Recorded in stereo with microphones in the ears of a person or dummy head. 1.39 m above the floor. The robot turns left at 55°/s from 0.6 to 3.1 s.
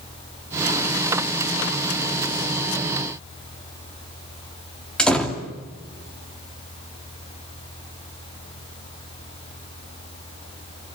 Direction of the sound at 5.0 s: 5° left (ahead or behind).